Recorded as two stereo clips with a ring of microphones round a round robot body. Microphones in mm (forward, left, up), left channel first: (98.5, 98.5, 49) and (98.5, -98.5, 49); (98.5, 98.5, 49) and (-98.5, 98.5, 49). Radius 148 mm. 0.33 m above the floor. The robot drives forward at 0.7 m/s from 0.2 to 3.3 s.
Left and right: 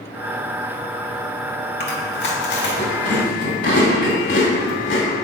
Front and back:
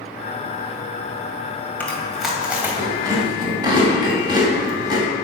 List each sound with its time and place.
1.8 s chewing: 80° left, 2 m; by 5.1 s 115° left, 2.5 m